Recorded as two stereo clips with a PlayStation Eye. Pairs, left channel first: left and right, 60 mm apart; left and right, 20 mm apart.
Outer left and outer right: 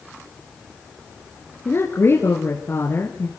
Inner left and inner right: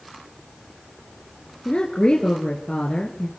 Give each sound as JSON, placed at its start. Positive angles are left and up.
{"t": 1.6, "sound": "a woman speaking", "side_deg": 40, "distance_m": 2.0}